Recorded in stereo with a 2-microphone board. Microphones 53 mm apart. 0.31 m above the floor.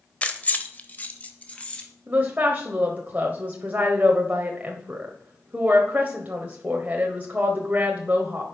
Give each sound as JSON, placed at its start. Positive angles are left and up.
{"t": 0.2, "sound": "keys jangling", "side_deg": 25, "distance_m": 0.9}
{"t": 2.1, "sound": "a woman speaking", "side_deg": -30, "distance_m": 1.1}